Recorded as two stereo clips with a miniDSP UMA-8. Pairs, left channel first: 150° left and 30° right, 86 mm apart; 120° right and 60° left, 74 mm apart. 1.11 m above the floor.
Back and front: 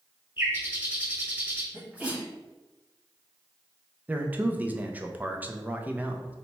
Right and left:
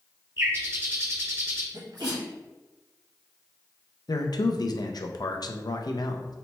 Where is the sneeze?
45° left, 1.7 m.